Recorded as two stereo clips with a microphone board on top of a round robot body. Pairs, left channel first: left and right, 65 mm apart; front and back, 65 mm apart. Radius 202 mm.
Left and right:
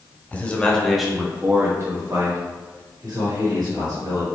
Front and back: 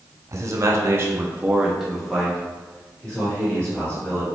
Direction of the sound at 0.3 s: 150° left.